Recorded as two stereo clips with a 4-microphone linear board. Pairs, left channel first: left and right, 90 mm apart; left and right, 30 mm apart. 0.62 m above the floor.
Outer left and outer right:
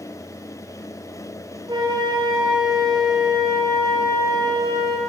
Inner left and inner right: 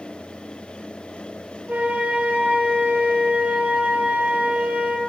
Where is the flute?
50° right (ahead or behind), 9.5 m.